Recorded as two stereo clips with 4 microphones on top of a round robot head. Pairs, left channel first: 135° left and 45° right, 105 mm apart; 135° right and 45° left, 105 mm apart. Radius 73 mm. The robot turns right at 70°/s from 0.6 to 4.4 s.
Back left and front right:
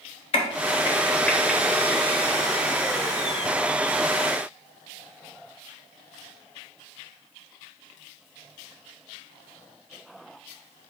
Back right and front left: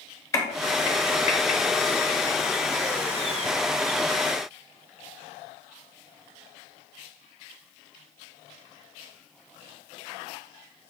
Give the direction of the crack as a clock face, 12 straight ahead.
7 o'clock.